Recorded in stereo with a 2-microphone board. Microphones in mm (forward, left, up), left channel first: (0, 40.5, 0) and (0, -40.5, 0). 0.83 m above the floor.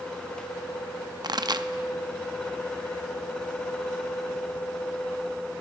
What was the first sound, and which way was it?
A pop, 60° right (ahead or behind).